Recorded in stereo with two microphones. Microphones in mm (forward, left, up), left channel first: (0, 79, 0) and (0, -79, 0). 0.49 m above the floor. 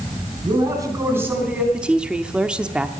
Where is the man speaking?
30° right (ahead or behind), 4.5 m; by 1.6 s 5° right (ahead or behind), 4 m.